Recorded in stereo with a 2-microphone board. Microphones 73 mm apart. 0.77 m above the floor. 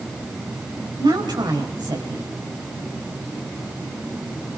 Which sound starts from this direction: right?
A woman speaking, at 1.0 s.